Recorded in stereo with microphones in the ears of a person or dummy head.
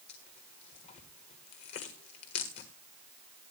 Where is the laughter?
No laughter in this recording.